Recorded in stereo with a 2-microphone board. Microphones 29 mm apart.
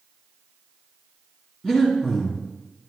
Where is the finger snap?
No finger snap in this recording.